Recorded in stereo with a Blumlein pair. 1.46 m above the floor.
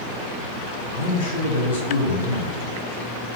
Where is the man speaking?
55° left, 4 m.